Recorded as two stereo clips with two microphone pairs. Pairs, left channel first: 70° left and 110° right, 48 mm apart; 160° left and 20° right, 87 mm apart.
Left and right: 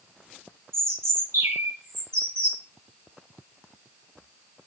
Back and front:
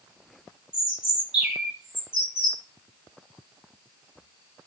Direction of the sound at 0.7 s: 100° right.